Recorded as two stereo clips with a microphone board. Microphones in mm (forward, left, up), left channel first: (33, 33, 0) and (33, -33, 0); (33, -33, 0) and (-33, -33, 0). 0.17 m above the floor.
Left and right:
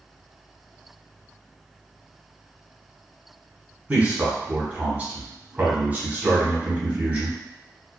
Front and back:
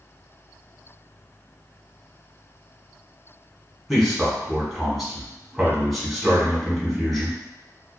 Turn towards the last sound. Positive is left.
turn(degrees=-90)